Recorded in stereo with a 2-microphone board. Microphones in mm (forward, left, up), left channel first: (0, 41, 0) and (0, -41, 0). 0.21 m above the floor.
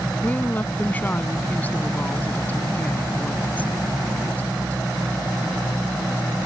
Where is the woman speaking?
20° left (ahead or behind).